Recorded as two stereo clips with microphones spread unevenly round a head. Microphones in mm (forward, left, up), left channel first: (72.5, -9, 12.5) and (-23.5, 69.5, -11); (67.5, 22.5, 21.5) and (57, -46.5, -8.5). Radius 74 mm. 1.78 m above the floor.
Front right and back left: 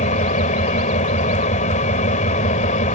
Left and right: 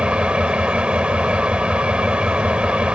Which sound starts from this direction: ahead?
An engine running, at 0.0 s.